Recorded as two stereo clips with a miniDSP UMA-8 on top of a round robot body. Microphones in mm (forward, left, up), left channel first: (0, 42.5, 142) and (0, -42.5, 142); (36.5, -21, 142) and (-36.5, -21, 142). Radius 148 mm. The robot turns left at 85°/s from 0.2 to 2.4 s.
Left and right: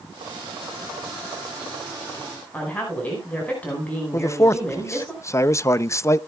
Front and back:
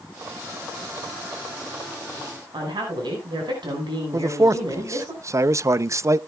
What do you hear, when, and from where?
2.5 s a woman speaking: 165° left, 5 m
4.1 s a man speaking: 140° left, 0.6 m